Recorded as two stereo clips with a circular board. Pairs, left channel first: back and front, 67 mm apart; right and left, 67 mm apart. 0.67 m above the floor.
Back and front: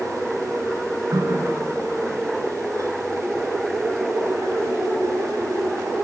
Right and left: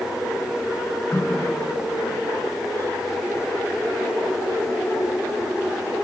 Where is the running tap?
30° right, 7 m.